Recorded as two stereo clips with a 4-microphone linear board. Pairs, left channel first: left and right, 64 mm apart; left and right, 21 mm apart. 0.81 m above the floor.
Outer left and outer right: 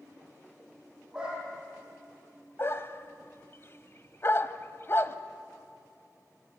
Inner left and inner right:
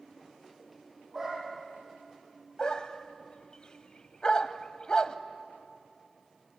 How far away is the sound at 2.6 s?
About 1.1 m.